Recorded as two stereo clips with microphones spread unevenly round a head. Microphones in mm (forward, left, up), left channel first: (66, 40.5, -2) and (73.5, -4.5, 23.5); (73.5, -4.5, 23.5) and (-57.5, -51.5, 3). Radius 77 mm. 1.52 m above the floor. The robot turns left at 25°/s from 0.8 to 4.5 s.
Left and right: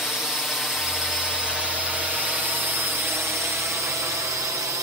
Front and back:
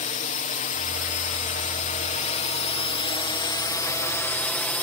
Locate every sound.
0.0 s a drone: 30° left; by 4.8 s 60° right